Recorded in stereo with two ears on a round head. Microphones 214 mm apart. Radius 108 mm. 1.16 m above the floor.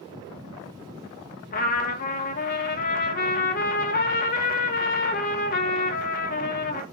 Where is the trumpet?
40° left (ahead or behind), 1.1 m.